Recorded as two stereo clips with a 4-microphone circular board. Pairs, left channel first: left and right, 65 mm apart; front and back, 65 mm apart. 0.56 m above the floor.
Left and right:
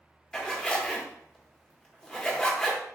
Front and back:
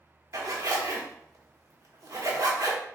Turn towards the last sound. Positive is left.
turn(degrees=165)